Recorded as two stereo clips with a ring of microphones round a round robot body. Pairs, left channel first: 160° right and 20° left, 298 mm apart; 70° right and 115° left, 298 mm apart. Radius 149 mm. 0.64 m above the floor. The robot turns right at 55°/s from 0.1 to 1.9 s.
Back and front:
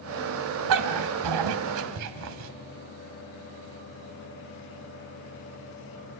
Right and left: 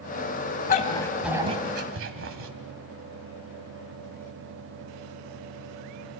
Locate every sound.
0.7 s a dog barking: 5° right, 1.6 m; by 2.5 s 60° left, 1.6 m